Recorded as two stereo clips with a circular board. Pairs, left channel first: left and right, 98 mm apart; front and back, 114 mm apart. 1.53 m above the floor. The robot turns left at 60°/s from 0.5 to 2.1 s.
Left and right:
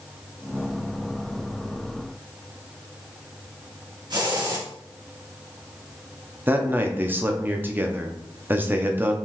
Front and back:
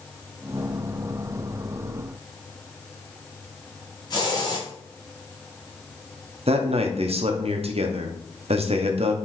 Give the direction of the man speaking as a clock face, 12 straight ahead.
5 o'clock.